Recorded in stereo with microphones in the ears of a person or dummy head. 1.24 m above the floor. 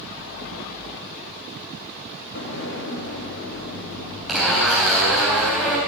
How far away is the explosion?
About 3 m.